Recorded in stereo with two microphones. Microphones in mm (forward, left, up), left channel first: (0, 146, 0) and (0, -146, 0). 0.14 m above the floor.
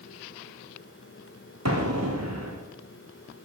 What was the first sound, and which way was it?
An explosion, 60° right (ahead or behind).